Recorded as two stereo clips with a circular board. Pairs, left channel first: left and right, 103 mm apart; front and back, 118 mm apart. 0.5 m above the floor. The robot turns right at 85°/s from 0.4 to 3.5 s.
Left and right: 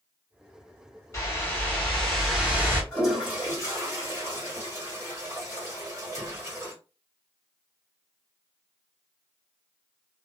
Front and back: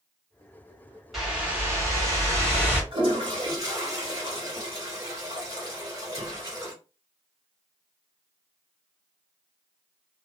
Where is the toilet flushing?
170° left, 1.7 m; by 6.7 s 140° right, 1.7 m.